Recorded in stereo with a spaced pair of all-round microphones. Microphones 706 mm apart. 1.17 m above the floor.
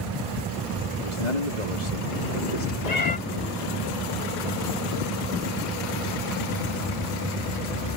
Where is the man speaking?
75° left (ahead or behind).